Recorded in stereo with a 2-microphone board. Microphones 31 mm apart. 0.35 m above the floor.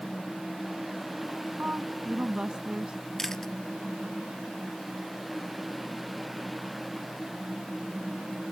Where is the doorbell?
No doorbell in this recording.